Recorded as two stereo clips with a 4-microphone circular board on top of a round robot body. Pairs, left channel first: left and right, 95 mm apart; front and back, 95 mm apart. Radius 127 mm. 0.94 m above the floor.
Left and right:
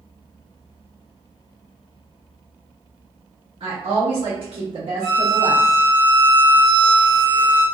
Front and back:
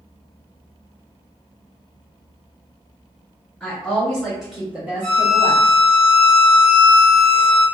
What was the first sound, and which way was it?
A woman speaking, 80° right.